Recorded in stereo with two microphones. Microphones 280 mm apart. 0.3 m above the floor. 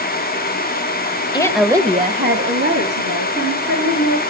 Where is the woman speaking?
15° left (ahead or behind), 1.2 m; by 4.2 s 70° right (ahead or behind), 4 m.